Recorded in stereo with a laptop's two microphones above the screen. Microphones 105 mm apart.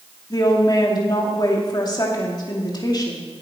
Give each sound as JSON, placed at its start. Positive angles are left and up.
{"t": 0.3, "sound": "a woman speaking", "side_deg": 40, "distance_m": 2.0}